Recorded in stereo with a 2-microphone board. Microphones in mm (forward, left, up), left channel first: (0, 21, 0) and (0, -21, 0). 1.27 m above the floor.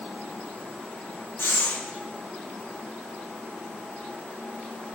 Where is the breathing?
85° left, 1.8 m.